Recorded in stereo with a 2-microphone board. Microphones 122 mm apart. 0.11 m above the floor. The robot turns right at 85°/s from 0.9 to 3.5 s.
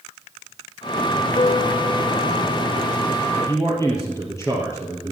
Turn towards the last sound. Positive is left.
turn(degrees=25)  # may be behind; listen again after turning